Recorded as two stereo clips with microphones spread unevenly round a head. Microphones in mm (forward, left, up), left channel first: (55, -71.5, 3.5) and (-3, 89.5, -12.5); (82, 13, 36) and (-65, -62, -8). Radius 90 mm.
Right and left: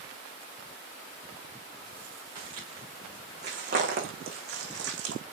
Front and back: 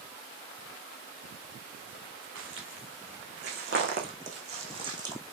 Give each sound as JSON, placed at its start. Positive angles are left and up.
{"t": 2.4, "sound": "footsteps", "azimuth_deg": 175, "distance_m": 6.0}